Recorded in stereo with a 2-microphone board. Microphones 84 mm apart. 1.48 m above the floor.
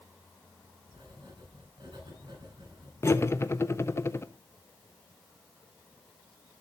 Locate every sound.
0.9 s writing: 60° right (ahead or behind), 4.5 m
3.0 s cutlery clinking: 30° left (ahead or behind), 0.6 m